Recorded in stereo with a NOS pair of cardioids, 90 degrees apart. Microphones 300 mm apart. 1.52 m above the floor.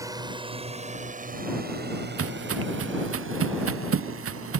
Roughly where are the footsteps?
Ahead right.